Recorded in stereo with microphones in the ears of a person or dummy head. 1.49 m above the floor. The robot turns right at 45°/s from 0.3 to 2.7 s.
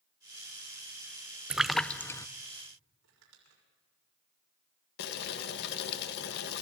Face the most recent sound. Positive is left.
turn(degrees=60)  # may be behind; listen again after turning